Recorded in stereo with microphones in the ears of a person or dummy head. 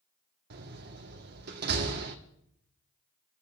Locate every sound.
0.5 s a door slam: 55° right (ahead or behind), 1.5 m